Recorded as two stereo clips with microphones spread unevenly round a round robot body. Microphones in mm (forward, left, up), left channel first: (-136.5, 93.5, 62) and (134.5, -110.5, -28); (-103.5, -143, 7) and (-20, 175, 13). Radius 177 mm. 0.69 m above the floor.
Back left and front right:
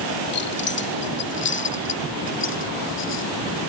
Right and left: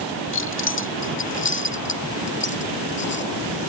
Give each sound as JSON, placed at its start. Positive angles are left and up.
{"t": 0.3, "sound": "keys jangling", "azimuth_deg": -160}